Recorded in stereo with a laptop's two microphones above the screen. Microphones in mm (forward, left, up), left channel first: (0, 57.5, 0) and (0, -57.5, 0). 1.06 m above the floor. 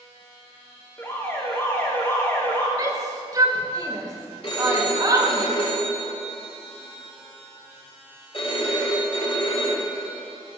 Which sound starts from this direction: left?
A phone ringing, at 4.4 s.